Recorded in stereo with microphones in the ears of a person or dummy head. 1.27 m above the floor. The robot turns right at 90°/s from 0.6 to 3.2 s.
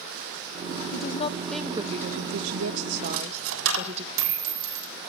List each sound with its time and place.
0.9 s a woman speaking: 115° left, 1.1 m; by 4.0 s 40° right, 1.1 m
3.0 s a dropped coin: 80° right, 3 m; by 4.9 s 75° right (ahead or behind), 3 m